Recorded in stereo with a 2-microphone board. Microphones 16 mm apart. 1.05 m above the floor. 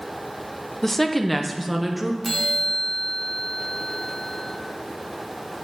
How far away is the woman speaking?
About 0.6 m.